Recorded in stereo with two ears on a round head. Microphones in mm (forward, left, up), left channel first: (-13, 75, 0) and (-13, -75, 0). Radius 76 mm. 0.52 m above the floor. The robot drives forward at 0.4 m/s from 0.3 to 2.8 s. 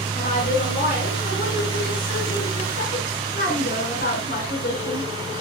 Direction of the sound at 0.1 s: 55° left (ahead or behind).